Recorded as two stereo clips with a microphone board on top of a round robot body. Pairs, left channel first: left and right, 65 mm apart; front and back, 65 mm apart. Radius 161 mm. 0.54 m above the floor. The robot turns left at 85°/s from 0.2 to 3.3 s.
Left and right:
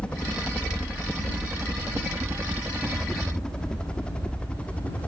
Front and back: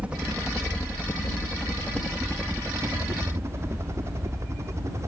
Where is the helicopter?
140° left; by 5.1 s 155° left.